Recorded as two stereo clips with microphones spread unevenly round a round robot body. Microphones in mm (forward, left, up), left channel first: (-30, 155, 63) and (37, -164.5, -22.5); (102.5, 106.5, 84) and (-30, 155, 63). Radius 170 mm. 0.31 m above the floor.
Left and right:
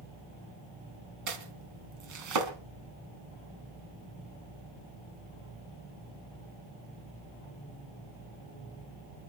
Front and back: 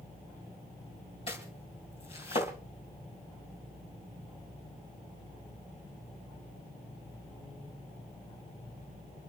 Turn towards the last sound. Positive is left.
turn(degrees=-75)